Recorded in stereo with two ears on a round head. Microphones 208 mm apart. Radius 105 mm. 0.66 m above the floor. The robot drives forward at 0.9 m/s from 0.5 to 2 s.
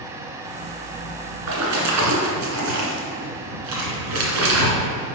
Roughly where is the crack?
I don't hear a crack.